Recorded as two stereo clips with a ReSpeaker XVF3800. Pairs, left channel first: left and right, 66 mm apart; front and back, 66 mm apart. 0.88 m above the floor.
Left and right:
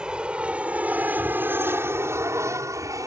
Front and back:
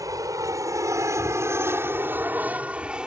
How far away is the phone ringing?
No phone ringing in this recording.